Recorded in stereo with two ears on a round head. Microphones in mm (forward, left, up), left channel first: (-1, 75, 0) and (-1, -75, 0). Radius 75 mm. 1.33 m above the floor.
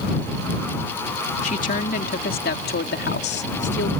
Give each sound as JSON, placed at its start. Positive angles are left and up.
{"t": 1.4, "sound": "a woman speaking", "side_deg": 45}